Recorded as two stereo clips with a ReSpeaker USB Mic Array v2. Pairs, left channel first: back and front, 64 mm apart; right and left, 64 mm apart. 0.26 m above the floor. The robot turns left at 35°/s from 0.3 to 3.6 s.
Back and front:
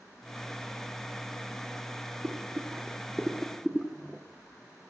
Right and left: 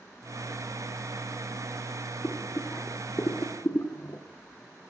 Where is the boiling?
40° right, 1.0 m; by 4.2 s 85° right, 1.0 m.